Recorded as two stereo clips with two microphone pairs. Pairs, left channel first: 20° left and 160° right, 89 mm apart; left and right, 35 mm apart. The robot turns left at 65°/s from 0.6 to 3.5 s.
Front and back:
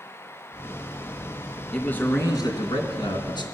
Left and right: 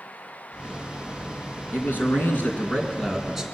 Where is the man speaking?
105° left, 3 m; by 3.4 s 5° right, 3 m.